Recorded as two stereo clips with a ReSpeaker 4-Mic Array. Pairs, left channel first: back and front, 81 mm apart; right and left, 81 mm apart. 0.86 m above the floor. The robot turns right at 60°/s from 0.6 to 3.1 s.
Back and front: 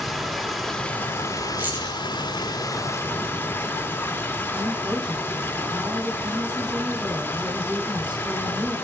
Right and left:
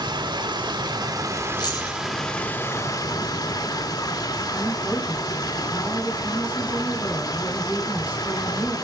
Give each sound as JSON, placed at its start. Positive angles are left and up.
{"t": 0.0, "sound": "running water", "azimuth_deg": 95, "distance_m": 1.8}
{"t": 1.6, "sound": "keys jangling", "azimuth_deg": -70, "distance_m": 5.5}
{"t": 4.5, "sound": "a woman speaking", "azimuth_deg": 20, "distance_m": 5.5}